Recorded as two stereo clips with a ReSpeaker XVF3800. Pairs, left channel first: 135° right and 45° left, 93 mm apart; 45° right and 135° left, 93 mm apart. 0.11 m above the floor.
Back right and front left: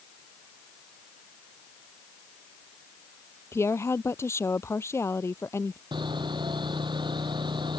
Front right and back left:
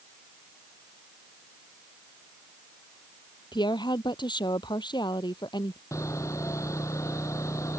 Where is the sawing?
15° left.